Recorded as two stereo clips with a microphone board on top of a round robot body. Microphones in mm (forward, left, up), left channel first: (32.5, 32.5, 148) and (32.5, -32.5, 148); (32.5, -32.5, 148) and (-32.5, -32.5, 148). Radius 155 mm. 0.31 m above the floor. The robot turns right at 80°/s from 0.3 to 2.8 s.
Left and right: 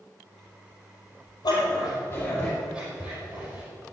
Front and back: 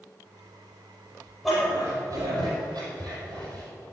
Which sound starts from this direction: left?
A dog barking, at 1.4 s.